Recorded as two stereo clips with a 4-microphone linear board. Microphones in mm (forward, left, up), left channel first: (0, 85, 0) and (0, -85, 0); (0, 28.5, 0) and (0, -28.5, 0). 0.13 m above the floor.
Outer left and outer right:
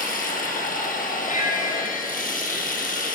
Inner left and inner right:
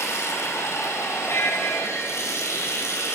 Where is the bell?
50° left (ahead or behind), 2 m.